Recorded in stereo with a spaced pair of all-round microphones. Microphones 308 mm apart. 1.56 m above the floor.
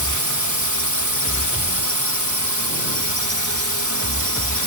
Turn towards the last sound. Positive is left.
turn(degrees=-70)  # may be behind; listen again after turning